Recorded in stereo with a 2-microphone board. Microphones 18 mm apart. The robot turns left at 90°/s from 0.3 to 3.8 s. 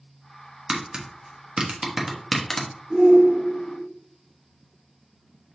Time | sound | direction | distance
0.7 | tapping | 35° right (ahead or behind) | 1.0 m
2.9 | a shout | 155° right | 1.9 m